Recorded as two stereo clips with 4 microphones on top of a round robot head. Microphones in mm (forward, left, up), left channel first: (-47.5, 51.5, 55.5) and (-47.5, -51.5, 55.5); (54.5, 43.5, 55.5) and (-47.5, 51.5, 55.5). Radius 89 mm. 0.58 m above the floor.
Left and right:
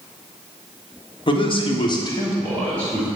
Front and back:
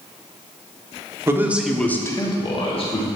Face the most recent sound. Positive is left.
turn(degrees=5)